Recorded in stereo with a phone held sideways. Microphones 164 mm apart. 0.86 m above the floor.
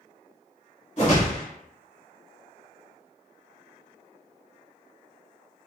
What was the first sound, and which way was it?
A whoosh, 45° left (ahead or behind).